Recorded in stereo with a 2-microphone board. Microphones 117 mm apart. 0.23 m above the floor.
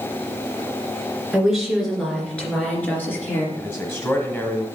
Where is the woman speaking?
5° right (ahead or behind), 2.5 m; by 3.5 s 20° left (ahead or behind), 3.5 m.